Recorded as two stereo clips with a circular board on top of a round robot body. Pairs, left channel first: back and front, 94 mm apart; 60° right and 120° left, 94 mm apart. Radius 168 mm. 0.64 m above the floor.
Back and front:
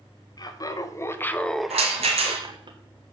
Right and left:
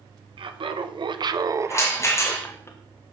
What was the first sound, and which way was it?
Laughter, 135° left.